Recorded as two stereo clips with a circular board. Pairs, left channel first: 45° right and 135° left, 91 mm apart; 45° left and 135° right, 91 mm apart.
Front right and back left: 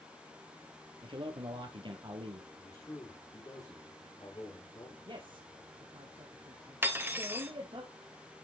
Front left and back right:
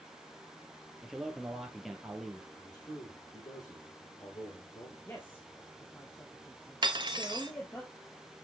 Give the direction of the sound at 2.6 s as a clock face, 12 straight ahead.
12 o'clock.